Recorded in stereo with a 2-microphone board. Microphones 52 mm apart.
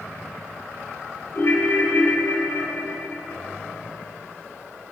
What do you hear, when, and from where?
1.3 s a ringtone: 50° left (ahead or behind), 2.5 m